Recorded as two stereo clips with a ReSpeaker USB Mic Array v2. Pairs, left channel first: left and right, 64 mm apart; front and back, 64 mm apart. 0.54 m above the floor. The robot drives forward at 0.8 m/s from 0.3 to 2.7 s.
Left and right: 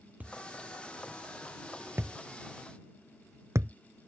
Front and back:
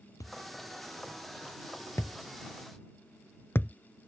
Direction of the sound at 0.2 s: 25° right.